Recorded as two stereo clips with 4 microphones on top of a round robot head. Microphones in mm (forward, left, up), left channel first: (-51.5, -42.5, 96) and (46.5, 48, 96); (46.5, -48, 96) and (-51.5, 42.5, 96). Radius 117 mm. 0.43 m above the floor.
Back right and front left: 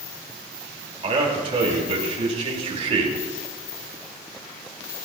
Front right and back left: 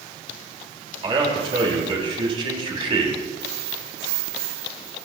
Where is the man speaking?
85° left, 3.5 m.